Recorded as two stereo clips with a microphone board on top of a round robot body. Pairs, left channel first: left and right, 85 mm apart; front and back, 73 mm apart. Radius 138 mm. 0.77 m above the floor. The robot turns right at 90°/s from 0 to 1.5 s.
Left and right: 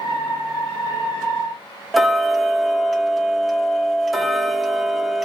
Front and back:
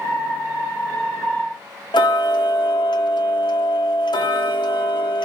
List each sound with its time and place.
1.9 s ticking: straight ahead, 0.7 m